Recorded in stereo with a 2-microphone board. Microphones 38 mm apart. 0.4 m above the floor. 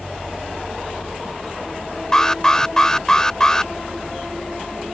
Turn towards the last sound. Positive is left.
turn(degrees=15)  # may be behind; listen again after turning